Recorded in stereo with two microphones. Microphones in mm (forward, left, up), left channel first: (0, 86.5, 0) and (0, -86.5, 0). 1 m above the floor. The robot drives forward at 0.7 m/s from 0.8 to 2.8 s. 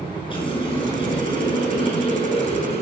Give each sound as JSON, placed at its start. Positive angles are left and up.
{"t": 0.3, "sound": "a running tap", "side_deg": 30, "distance_m": 8.0}